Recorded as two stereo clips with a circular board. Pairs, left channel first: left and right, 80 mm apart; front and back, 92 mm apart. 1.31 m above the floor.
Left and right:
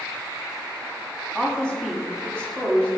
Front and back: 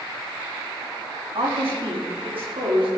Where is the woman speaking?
170° left, 3.5 m; by 2.9 s 165° left, 4.5 m.